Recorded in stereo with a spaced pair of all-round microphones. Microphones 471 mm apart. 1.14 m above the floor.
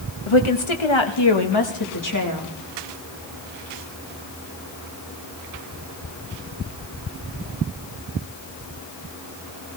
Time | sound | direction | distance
0.3 | a woman speaking | 90° left | 1.2 m